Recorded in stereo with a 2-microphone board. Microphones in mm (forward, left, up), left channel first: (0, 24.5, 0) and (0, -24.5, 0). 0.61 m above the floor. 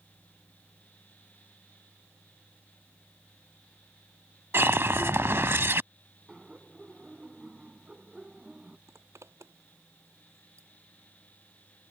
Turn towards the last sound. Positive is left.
turn(degrees=-75)  # may be behind; listen again after turning